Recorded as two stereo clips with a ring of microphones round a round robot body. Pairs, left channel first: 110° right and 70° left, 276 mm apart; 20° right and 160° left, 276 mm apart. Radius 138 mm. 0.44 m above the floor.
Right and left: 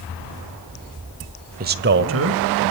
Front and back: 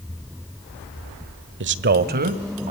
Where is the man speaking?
120° left, 1.3 m; by 2.7 s 95° left, 2.5 m.